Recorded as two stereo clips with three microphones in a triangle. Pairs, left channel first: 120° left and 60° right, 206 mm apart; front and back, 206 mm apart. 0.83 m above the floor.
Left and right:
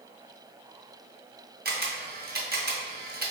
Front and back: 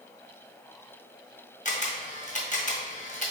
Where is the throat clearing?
I don't hear throat clearing.